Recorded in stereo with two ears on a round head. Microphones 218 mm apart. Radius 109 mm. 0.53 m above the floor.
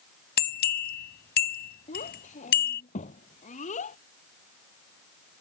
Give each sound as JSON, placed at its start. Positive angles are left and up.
{"t": 0.4, "sound": "a bell", "side_deg": 45}
{"t": 1.9, "sound": "a child speaking", "side_deg": 30}